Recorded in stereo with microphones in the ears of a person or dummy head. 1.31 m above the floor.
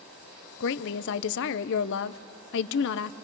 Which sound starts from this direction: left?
A woman speaking, at 0.6 s.